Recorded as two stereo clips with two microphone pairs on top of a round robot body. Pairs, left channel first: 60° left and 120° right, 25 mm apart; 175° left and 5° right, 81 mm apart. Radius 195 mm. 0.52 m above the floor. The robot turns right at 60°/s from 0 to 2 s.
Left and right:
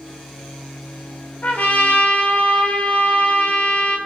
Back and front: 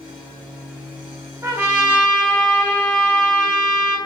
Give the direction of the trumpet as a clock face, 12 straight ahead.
10 o'clock.